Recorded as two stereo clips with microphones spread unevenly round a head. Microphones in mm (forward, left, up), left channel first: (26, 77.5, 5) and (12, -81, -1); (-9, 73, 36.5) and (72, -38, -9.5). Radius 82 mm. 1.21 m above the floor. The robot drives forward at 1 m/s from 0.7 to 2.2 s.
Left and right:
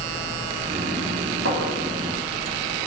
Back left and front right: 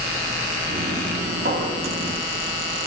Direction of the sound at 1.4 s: 95° right.